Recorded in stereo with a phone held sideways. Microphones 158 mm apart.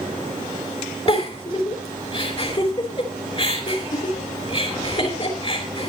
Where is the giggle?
40° left (ahead or behind), 4 m.